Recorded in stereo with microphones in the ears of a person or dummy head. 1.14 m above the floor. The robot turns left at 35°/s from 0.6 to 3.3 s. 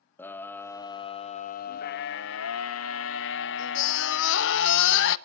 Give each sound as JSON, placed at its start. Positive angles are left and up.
{"t": 0.2, "sound": "a scream", "azimuth_deg": 165, "distance_m": 0.9}